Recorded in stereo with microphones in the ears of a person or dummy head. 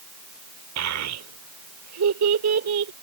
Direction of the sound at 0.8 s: 80° right.